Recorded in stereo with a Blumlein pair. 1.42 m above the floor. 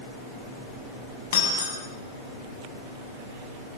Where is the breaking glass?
60° left, 8 m.